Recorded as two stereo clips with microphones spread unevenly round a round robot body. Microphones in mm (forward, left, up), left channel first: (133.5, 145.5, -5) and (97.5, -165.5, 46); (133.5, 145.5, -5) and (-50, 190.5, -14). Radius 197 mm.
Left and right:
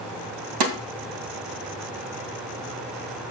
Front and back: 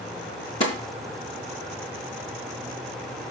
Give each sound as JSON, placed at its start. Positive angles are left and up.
{"t": 0.6, "sound": "a snare drum", "azimuth_deg": -85, "distance_m": 2.5}